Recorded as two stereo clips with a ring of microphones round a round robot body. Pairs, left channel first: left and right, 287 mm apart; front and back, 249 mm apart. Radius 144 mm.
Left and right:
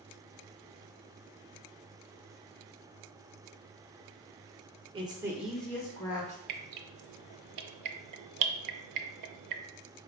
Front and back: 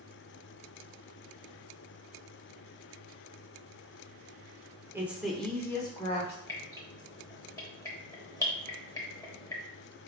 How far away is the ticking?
I don't hear ticking.